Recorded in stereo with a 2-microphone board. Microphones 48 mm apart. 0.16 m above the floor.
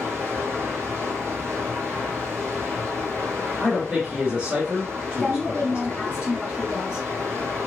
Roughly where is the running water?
Right.